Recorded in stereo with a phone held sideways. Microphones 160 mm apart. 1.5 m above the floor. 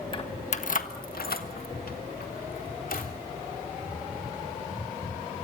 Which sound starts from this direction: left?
Keys jangling, at 0.1 s.